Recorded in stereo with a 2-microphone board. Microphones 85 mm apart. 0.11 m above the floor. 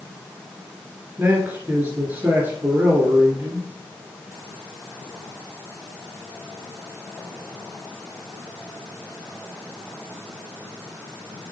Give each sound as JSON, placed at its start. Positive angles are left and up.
{"t": 1.2, "sound": "a man speaking", "side_deg": -20, "distance_m": 1.9}